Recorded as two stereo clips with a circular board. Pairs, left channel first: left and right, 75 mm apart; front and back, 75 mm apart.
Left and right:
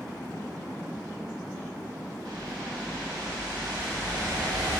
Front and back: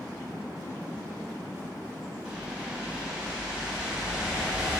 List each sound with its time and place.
2.2 s a whoosh: 105° right, 2.5 m